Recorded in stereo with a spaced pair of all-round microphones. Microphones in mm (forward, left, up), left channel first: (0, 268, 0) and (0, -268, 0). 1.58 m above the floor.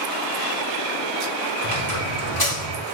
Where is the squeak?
40° left (ahead or behind), 1.7 m.